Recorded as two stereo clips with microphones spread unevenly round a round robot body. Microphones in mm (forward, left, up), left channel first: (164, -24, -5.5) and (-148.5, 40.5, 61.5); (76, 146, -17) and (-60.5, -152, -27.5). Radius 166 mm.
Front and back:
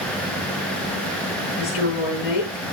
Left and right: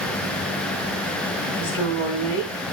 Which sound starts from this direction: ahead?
A woman speaking, at 1.6 s.